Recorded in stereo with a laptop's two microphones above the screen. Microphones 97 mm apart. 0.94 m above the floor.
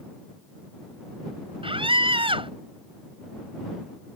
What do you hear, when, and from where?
1.6 s a scream: 65° right (ahead or behind)